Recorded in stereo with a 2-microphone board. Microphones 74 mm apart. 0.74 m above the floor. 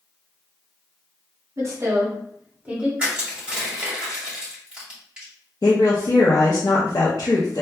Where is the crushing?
15° right (ahead or behind), 1.9 m.